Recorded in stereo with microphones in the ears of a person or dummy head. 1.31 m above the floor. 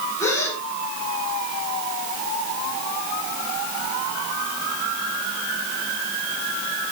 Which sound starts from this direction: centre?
A gasp, at 0.2 s.